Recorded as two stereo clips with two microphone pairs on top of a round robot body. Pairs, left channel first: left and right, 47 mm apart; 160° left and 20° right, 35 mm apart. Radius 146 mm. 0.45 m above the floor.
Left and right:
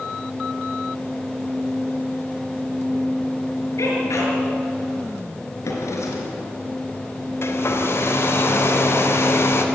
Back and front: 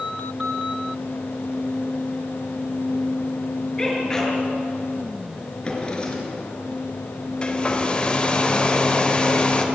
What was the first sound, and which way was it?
A sneeze, 85° left.